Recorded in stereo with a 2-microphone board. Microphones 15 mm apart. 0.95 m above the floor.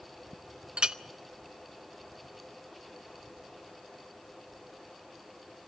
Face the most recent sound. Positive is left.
turn(degrees=-60)  # may be behind; listen again after turning